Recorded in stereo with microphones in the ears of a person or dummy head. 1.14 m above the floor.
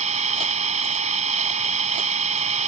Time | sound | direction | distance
0.0 | an engine running | 35° right (ahead or behind) | ?